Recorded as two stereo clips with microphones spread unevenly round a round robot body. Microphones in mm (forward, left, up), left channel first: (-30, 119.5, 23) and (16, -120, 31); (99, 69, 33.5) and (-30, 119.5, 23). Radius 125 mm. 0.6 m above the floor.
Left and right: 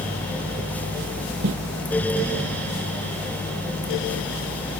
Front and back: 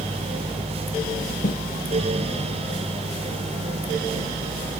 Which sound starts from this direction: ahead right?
Footsteps, at 1.4 s.